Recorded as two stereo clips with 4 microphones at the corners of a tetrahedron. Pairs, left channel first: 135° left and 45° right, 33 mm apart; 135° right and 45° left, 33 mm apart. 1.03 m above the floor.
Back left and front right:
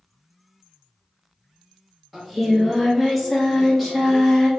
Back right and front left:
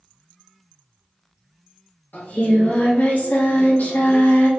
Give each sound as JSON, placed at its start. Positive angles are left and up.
{"t": 2.1, "sound": "singing", "azimuth_deg": -140, "distance_m": 1.2}